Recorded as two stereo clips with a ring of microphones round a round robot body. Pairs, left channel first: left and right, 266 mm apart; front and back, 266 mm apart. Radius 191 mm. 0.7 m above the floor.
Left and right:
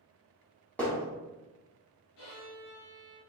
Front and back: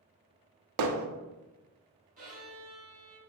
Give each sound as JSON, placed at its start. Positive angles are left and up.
{"t": 0.8, "sound": "hammering", "azimuth_deg": 175, "distance_m": 0.6}
{"t": 2.2, "sound": "a violin", "azimuth_deg": 120, "distance_m": 2.0}